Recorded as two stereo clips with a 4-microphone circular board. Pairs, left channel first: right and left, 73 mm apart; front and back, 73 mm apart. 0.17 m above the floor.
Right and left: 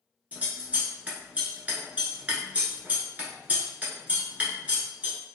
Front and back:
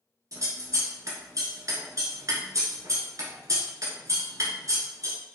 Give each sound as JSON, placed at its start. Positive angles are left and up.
{"t": 0.3, "sound": "scissors", "azimuth_deg": 155, "distance_m": 0.9}